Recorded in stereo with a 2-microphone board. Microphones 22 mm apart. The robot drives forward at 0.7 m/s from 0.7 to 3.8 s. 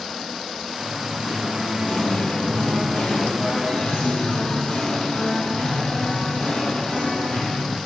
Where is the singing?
65° left (ahead or behind), 2.5 m; by 7.8 s 55° left (ahead or behind), 2.5 m.